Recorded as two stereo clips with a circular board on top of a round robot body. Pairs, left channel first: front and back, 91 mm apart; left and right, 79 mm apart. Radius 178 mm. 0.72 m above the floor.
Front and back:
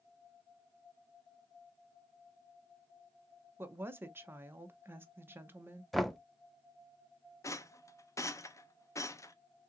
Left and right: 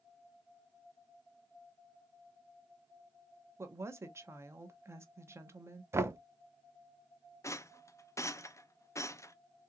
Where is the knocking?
90° right, 0.8 m.